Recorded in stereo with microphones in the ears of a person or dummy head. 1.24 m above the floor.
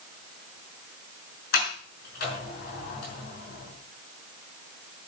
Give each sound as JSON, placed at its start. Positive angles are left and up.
{"t": 1.5, "sound": "a sliding door", "side_deg": 65, "distance_m": 5.5}